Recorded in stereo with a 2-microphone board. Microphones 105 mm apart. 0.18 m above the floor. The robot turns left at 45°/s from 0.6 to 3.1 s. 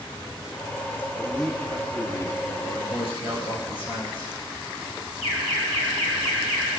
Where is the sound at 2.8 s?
55° left (ahead or behind), 4 m; by 4.3 s 65° left (ahead or behind), 4 m.